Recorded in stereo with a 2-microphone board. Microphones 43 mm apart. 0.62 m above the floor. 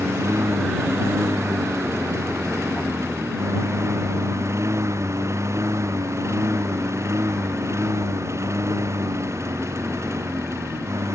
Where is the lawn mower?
90° right; by 11.2 s 85° right.